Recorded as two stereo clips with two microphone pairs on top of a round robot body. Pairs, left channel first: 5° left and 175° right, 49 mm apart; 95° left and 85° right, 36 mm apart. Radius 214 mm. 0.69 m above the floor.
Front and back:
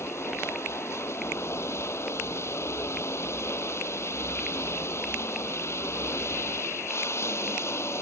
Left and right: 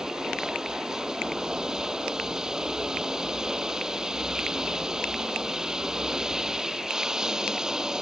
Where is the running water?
15° right.